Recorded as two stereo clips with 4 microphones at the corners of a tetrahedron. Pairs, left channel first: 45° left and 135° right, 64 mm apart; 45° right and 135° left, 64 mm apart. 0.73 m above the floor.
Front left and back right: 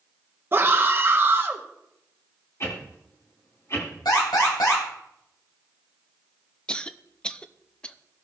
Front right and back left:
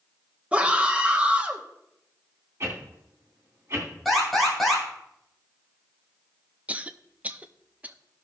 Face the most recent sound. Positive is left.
turn(degrees=105)